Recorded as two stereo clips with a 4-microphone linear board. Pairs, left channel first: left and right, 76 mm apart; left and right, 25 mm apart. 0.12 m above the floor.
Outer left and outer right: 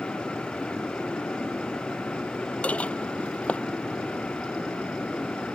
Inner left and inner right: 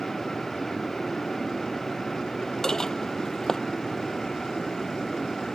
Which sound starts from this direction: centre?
Dishes clattering, at 2.6 s.